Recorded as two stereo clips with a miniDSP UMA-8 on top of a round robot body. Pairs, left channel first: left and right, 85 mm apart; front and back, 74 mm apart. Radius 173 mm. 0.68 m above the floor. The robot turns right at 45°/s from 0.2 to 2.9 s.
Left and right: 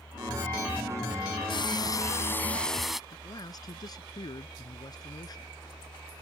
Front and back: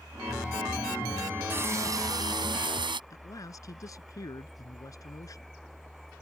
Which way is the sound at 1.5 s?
120° left.